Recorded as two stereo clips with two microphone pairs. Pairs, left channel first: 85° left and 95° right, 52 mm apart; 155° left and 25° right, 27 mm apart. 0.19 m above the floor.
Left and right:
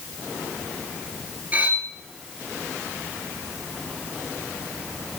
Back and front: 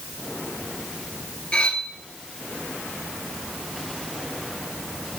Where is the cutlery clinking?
150° right, 1.8 m.